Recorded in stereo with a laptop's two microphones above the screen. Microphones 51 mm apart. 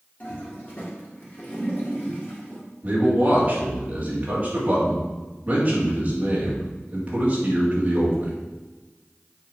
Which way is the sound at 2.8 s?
25° right (ahead or behind).